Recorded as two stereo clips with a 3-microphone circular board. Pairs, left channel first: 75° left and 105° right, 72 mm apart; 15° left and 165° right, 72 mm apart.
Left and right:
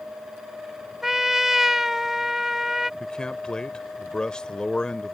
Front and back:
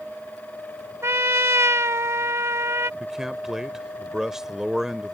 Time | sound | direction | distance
1.0 | a trumpet | 175° left | ?
3.0 | a man speaking | 130° left | ?